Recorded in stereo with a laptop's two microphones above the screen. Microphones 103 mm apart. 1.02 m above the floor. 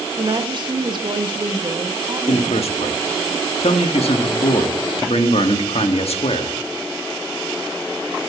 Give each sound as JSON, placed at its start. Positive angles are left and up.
{"t": 0.2, "sound": "a woman speaking", "side_deg": -45, "distance_m": 1.6}
{"t": 2.3, "sound": "a man speaking", "side_deg": 75, "distance_m": 1.4}